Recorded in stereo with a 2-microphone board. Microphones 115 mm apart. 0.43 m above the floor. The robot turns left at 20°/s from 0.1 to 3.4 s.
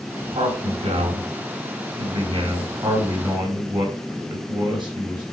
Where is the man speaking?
75° right, 5 m; by 5.2 s 135° right, 5 m.